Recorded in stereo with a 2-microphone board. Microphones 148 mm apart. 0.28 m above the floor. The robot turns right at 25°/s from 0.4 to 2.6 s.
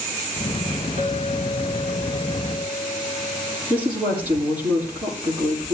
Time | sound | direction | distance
1.0 | a clink | 65° right | 7.5 m
3.7 | a woman speaking | 10° right (ahead or behind) | 8.5 m